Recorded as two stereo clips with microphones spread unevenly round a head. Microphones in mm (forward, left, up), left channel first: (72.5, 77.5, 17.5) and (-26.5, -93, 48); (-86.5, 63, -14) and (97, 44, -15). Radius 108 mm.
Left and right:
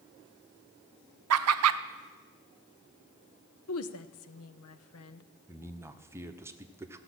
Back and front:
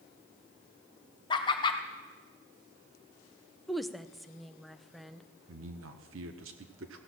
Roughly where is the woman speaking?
Left.